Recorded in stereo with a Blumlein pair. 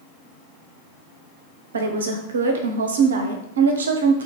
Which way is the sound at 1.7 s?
65° right.